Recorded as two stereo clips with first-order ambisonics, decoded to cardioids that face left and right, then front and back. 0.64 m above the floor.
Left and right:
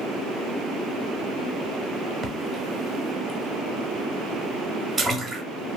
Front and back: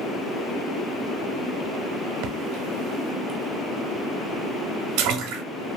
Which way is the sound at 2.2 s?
155° right.